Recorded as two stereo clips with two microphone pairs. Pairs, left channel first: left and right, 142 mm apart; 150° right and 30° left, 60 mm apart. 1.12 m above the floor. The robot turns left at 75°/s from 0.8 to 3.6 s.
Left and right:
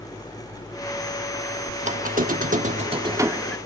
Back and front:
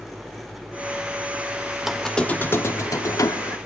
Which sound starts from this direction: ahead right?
A squeak, at 1.8 s.